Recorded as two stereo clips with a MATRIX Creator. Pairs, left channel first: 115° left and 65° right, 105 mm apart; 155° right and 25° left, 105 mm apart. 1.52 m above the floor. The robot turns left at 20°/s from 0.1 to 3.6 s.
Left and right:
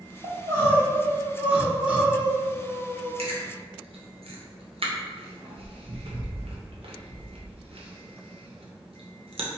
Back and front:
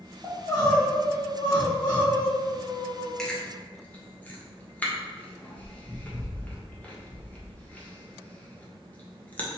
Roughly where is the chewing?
Right.